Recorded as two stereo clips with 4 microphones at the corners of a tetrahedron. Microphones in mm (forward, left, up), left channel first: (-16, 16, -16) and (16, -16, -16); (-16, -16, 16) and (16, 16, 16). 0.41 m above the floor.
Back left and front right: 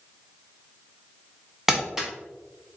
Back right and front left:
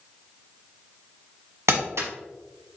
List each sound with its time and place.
1.7 s crumpling: 35° left, 1.2 m